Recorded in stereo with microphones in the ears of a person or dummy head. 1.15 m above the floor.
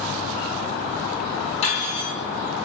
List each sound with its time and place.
1.6 s cutlery clinking: 40° left (ahead or behind), 1.6 m